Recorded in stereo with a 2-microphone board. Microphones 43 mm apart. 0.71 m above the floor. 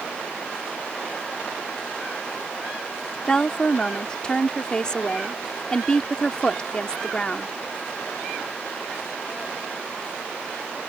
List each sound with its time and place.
3.3 s a woman speaking: 20° left (ahead or behind)